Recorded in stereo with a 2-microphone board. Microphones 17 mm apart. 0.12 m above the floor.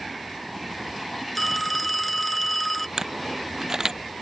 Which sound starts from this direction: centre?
A phone ringing, at 1.4 s.